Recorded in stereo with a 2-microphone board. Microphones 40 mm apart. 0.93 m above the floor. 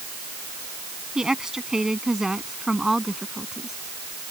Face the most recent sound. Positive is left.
turn(degrees=-10)  # may be behind; listen again after turning